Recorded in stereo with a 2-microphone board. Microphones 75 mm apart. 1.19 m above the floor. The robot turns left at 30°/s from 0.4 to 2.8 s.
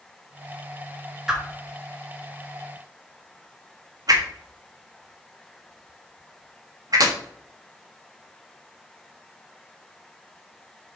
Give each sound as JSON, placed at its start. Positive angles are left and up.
{"t": 1.3, "sound": "a whoosh", "side_deg": -10, "distance_m": 1.3}